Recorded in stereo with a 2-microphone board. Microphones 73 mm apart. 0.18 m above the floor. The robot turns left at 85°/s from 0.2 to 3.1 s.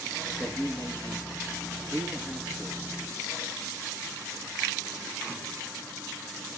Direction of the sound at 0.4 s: 165° left.